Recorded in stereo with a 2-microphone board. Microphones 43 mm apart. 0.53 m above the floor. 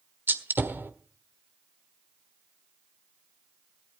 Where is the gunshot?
55° right (ahead or behind), 1.4 m.